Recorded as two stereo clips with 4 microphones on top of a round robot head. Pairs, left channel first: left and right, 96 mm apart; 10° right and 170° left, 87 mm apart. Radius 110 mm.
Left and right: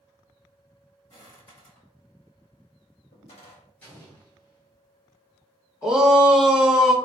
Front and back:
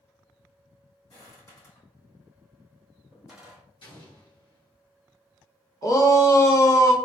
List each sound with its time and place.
1.1 s footsteps: 35° left, 1.7 m; by 3.6 s 90° left, 1.7 m
3.8 s an explosion: 15° left, 1.7 m
5.8 s a shout: 10° right, 0.8 m